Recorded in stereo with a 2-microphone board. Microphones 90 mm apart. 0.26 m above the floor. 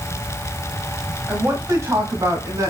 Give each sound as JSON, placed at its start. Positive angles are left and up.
{"t": 1.3, "sound": "a woman speaking", "side_deg": -20, "distance_m": 1.3}